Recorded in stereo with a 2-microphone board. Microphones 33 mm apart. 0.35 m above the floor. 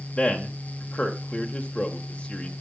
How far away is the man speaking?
About 1.1 m.